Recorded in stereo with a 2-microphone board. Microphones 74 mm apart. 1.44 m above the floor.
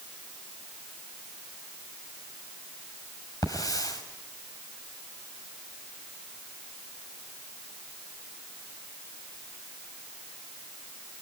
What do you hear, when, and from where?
3.4 s a hiss: 55° left (ahead or behind), 5.5 m